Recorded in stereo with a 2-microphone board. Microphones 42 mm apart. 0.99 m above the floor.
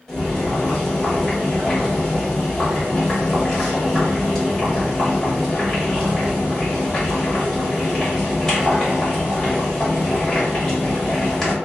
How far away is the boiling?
About 1.5 m.